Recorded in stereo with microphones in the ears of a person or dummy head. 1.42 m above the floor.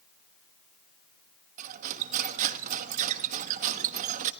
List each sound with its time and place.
1.6 s cutlery clinking: 40° right (ahead or behind), 1.2 m